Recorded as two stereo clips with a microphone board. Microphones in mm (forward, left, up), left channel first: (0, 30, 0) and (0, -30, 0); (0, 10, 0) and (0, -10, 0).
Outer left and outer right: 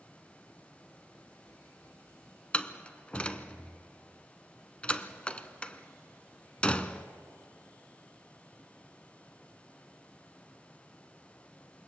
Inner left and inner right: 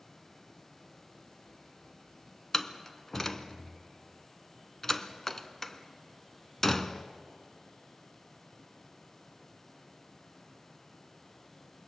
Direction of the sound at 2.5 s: 20° left (ahead or behind).